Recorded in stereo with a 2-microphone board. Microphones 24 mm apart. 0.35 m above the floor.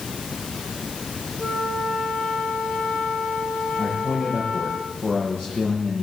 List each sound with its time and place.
1.4 s a flute: 70° left (ahead or behind), 8.5 m
3.8 s a man speaking: 50° left (ahead or behind), 8.5 m